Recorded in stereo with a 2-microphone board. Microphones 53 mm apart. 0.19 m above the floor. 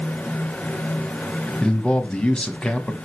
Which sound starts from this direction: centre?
A man speaking, at 1.6 s.